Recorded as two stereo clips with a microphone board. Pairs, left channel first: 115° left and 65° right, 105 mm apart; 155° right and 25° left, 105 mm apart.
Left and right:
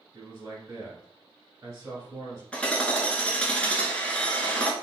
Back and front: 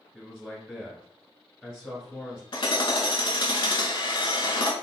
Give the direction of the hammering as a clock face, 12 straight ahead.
6 o'clock.